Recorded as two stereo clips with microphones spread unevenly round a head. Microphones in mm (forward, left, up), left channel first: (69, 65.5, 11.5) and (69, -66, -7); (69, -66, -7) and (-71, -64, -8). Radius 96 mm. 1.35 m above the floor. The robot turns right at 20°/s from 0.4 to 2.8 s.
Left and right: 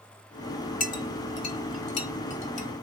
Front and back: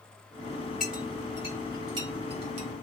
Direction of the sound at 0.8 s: 90° left.